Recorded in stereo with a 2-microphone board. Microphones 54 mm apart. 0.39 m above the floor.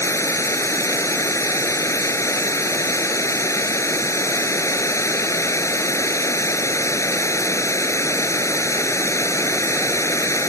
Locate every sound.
0.0 s running water: 70° left (ahead or behind)